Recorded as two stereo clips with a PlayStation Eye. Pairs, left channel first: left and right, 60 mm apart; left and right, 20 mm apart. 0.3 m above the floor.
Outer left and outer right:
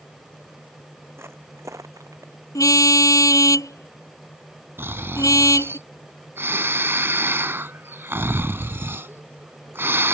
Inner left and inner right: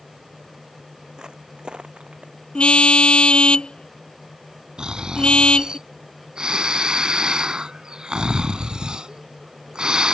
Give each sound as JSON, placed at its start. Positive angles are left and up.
{"t": 1.2, "sound": "footsteps", "side_deg": -45}
{"t": 2.5, "sound": "a car horn", "side_deg": 70}
{"t": 4.8, "sound": "snoring", "side_deg": -45}